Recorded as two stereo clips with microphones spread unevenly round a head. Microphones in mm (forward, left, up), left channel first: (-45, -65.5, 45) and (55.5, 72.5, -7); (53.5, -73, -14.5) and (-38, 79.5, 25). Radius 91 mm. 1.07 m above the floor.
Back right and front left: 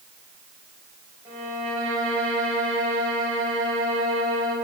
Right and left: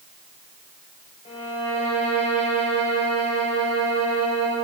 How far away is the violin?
About 4 m.